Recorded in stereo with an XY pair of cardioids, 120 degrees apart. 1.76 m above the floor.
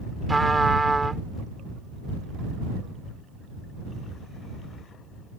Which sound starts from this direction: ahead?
A trumpet, at 0.3 s.